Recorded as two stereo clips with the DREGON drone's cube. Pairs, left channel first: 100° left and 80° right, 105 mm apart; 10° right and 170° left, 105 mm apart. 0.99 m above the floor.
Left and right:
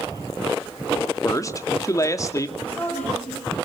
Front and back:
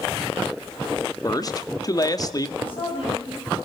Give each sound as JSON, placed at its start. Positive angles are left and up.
{"t": 1.2, "sound": "a man speaking", "azimuth_deg": 40, "distance_m": 1.9}
{"t": 2.6, "sound": "a woman speaking", "azimuth_deg": 25, "distance_m": 9.5}